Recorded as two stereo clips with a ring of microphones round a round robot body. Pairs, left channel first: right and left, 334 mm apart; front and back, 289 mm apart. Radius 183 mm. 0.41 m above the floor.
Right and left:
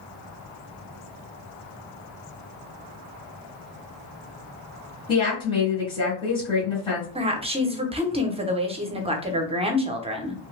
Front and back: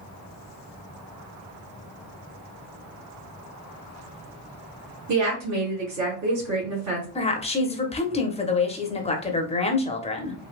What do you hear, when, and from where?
5.1 s a woman speaking: 165° right, 2 m
7.2 s a woman speaking: 40° left, 0.8 m